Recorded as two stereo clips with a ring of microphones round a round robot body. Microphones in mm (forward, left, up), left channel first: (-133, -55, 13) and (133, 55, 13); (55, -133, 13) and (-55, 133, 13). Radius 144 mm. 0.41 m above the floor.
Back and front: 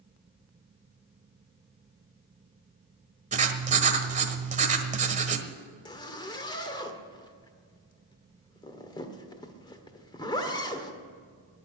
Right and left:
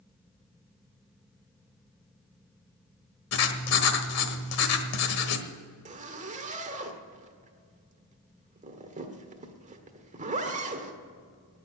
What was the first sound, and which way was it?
Writing, 40° right.